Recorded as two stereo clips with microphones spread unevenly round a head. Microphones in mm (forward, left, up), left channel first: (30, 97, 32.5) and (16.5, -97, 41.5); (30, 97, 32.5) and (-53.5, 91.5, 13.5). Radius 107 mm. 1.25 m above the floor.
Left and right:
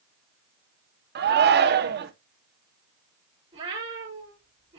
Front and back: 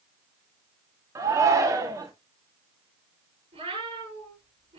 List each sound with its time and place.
1.1 s a shout: 130° right, 1.1 m
3.5 s a cat meowing: 165° right, 6.5 m